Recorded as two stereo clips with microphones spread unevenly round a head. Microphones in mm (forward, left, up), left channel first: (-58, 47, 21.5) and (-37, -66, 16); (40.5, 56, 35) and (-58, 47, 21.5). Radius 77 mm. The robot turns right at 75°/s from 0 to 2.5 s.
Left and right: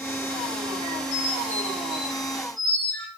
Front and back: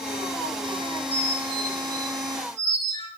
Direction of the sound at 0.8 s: 55° left.